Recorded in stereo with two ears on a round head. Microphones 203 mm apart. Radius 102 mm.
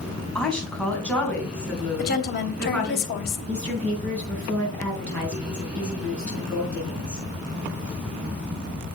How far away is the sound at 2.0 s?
About 2.5 m.